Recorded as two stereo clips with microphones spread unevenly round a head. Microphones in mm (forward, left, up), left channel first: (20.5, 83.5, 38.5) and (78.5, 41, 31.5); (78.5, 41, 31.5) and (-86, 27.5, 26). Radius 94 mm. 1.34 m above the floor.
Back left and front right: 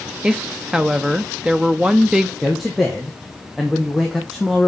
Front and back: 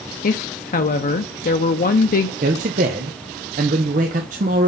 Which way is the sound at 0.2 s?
40° left.